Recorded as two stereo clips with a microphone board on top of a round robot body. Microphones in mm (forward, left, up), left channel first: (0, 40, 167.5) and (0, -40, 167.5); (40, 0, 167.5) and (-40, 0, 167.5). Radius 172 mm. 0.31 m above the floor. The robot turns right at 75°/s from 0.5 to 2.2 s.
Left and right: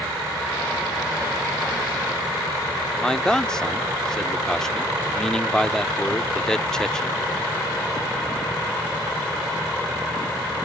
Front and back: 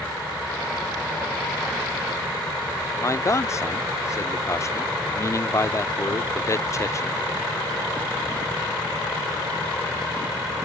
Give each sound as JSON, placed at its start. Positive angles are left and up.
{"t": 3.0, "sound": "a man speaking", "azimuth_deg": 10}